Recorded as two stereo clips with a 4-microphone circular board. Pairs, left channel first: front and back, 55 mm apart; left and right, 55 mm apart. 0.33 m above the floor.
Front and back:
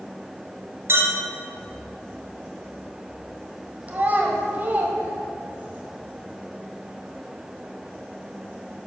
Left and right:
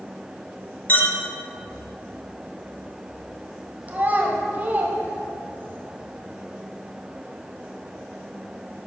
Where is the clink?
140° left, 1.5 m.